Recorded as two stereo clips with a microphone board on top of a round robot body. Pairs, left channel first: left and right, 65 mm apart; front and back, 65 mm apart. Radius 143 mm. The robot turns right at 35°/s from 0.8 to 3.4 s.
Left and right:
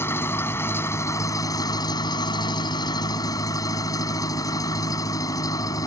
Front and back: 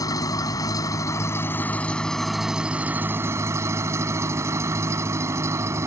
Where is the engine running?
35° left; by 5.9 s 125° left.